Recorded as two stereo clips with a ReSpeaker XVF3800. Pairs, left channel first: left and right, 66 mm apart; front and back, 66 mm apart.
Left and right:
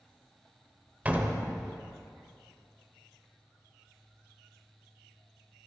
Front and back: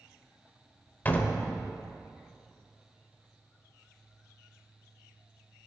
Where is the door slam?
45° right, 0.8 m.